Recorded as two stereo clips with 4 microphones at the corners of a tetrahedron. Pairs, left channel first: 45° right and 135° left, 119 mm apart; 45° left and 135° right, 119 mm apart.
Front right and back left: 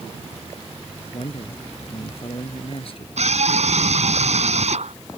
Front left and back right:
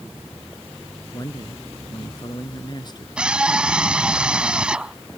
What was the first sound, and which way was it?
A man speaking, 10° right.